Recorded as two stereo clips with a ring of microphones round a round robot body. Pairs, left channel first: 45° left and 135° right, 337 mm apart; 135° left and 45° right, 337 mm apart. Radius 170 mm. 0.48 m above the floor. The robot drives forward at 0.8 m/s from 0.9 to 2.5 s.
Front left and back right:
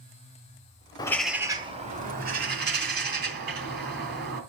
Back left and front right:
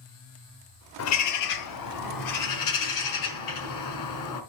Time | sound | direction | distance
1.0 | a bird | 120° left | 0.7 m